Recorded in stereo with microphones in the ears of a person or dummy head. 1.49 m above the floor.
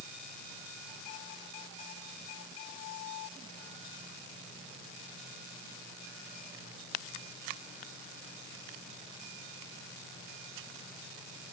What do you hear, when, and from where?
Only background noise.